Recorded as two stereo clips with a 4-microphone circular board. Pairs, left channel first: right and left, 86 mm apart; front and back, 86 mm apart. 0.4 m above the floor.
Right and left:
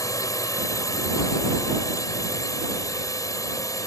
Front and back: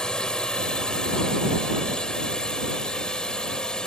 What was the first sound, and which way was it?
A drone, 75° right.